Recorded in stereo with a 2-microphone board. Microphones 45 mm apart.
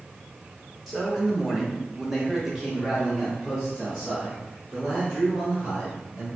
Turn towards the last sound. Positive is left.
turn(degrees=0)  # may be behind; listen again after turning